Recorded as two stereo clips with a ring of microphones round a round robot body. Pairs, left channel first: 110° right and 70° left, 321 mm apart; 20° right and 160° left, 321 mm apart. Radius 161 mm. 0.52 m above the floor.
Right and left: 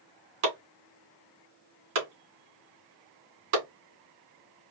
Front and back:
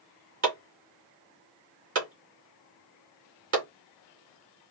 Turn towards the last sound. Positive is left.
turn(degrees=105)